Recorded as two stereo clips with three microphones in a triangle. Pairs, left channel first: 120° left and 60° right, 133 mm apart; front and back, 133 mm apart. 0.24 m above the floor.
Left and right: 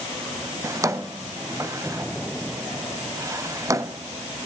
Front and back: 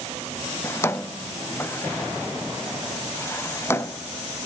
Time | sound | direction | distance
0.6 | a drawer | 40° right | 0.8 m